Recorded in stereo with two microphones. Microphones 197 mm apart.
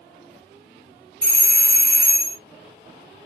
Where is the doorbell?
10° left (ahead or behind), 1.2 m.